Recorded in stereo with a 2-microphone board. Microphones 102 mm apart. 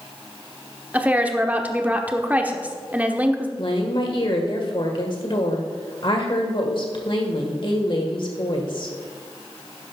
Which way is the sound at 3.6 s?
55° left (ahead or behind).